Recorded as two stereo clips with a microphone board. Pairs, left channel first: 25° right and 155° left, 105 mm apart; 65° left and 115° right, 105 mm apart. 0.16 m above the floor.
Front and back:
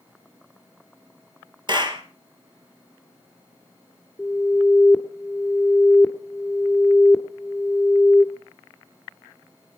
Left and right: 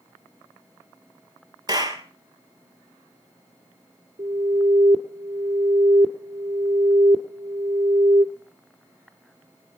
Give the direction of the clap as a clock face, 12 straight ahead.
5 o'clock.